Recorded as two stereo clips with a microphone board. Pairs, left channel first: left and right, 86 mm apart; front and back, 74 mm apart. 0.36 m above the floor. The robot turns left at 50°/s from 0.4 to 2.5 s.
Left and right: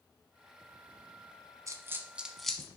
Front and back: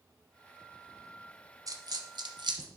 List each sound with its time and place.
1.7 s a dropped coin: 140° right, 0.8 m; by 2.7 s 175° left, 0.8 m